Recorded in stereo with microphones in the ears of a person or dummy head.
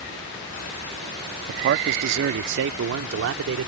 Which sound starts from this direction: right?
A man speaking, at 1.5 s.